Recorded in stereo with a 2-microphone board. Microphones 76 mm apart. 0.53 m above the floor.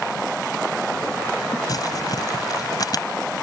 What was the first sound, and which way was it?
Crumpling, 55° left (ahead or behind).